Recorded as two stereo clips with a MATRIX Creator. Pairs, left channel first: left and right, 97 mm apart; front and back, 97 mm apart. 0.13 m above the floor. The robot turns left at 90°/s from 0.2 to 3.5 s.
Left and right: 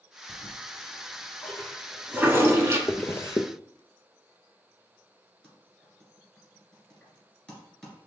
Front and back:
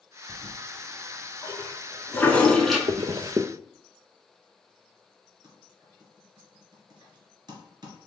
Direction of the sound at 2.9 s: 175° left.